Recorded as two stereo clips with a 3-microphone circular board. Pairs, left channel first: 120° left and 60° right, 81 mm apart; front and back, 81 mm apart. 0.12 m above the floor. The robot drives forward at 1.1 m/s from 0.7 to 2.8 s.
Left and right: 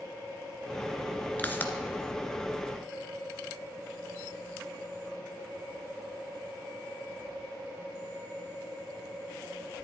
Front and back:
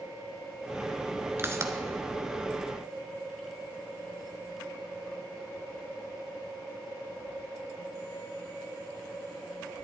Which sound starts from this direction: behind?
A pop, at 1.4 s.